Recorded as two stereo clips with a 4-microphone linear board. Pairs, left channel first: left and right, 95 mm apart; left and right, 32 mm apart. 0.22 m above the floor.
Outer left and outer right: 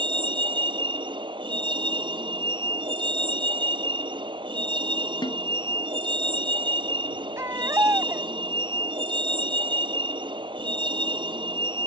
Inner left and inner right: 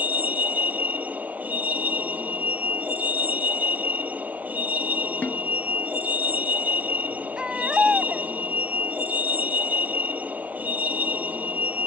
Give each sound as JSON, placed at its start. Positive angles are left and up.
{"t": 0.0, "sound": "a vehicle", "side_deg": -55}
{"t": 5.2, "sound": "a snare drum", "side_deg": 55}
{"t": 7.4, "sound": "a baby crying", "side_deg": -30}